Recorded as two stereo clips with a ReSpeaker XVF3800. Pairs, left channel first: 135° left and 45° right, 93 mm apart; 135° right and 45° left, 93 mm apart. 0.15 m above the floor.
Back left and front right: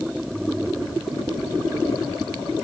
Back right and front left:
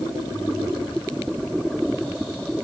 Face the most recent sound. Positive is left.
No sound to turn to.